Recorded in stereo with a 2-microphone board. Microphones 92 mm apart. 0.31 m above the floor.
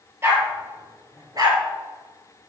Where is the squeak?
I don't hear a squeak.